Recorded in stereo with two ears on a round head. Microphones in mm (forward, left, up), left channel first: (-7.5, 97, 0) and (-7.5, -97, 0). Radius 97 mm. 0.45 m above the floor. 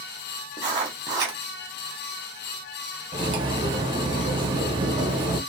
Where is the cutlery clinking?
25° right (ahead or behind), 0.6 m.